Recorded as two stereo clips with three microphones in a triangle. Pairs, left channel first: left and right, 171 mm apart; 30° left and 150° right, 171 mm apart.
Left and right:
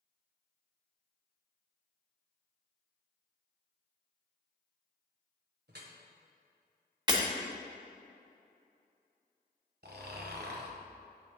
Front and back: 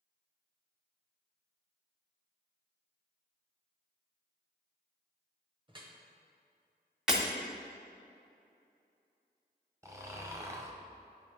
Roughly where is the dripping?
Right.